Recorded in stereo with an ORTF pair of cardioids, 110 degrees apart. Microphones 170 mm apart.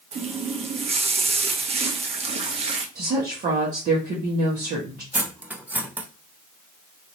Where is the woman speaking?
55° right, 1.3 m.